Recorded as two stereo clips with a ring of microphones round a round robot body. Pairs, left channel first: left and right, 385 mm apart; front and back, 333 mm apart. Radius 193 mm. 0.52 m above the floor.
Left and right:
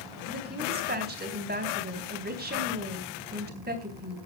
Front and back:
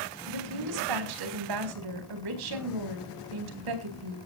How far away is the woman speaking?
About 4 m.